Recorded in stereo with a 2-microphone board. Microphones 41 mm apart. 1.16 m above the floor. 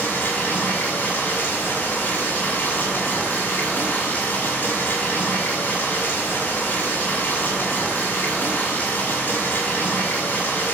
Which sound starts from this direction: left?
Running water, at 0.0 s.